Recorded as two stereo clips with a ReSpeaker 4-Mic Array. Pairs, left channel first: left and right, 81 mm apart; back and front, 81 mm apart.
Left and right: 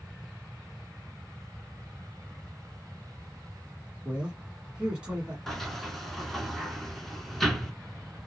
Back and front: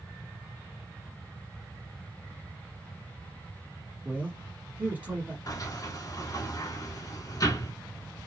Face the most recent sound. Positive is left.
turn(degrees=175)